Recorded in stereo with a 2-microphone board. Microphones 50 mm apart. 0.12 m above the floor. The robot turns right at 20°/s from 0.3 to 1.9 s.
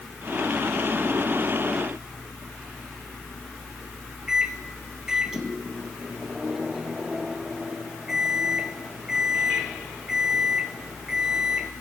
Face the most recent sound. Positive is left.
turn(degrees=-10)  # may be behind; listen again after turning